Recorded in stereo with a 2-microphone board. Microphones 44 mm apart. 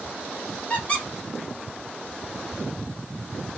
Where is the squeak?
35° left (ahead or behind), 1.3 m.